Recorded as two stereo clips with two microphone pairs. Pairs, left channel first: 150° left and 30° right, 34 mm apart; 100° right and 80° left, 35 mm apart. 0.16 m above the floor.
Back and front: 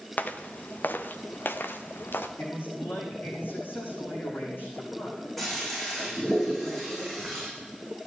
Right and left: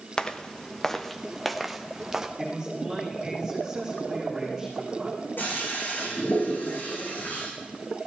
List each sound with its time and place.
0.2 s footsteps: 170° right, 1.7 m; by 2.3 s 155° left, 2.0 m
2.4 s a man speaking: 155° left, 8 m
5.4 s a toilet flushing: 125° right, 8.5 m